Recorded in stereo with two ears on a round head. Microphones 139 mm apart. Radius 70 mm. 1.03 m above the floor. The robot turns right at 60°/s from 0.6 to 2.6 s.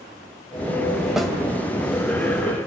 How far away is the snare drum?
About 3 m.